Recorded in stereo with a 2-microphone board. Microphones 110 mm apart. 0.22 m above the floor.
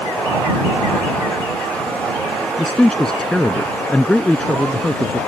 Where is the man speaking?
5° left (ahead or behind).